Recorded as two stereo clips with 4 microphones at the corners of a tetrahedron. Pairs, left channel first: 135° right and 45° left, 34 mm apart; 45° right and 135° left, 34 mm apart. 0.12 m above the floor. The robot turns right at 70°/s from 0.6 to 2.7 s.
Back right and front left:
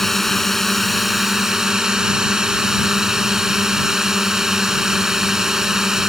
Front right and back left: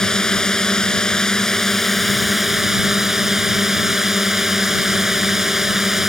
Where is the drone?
65° right; by 6.1 s 80° left.